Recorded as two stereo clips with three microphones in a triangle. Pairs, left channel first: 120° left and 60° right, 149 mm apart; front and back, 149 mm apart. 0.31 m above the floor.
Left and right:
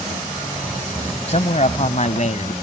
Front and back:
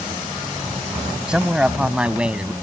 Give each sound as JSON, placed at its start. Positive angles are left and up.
{"t": 1.3, "sound": "a man speaking", "azimuth_deg": 95}